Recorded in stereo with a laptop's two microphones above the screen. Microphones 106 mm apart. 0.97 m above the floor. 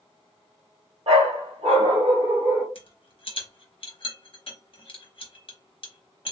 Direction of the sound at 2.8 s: 55° left (ahead or behind).